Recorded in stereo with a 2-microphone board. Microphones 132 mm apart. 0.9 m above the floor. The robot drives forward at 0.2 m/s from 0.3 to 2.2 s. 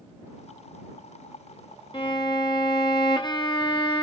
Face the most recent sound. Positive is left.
turn(degrees=35)  # may be behind; listen again after turning